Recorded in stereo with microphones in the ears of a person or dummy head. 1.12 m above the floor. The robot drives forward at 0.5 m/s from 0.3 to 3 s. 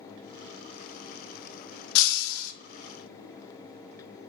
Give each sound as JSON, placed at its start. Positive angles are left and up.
{"t": 1.9, "sound": "breaking glass", "side_deg": 70, "distance_m": 0.5}